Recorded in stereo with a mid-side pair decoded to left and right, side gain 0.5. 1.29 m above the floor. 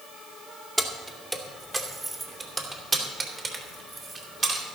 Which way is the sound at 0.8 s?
10° right.